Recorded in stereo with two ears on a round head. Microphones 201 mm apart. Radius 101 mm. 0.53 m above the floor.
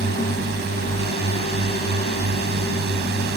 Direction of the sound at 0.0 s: 50° right (ahead or behind).